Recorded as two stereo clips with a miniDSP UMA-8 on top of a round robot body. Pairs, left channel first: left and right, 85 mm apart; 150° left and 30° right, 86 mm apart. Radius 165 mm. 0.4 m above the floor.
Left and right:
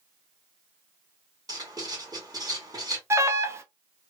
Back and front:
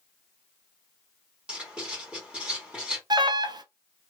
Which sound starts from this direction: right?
Writing, at 1.5 s.